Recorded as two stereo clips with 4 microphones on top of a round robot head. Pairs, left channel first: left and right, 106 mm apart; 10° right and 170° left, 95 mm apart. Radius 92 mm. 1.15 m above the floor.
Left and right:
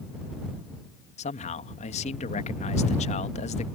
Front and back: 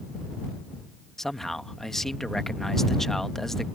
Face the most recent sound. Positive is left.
turn(degrees=75)